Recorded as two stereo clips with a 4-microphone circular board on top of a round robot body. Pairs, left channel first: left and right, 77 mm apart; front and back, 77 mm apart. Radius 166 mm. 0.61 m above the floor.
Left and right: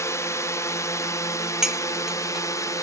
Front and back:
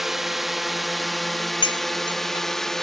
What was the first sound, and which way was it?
A drone, 95° left.